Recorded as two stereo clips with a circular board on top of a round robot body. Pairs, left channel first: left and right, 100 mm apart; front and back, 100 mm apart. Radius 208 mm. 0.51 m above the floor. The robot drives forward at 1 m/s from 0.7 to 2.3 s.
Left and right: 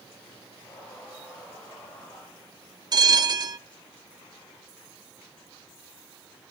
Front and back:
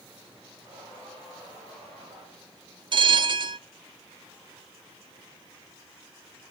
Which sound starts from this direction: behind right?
A bell, at 2.9 s.